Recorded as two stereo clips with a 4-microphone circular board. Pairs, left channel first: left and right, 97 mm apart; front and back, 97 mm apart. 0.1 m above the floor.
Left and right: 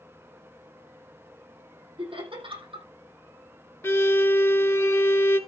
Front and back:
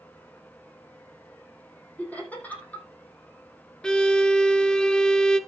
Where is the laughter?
75° right, 5 m.